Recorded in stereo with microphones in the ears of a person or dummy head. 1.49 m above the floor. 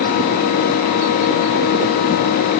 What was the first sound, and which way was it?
Only background noise.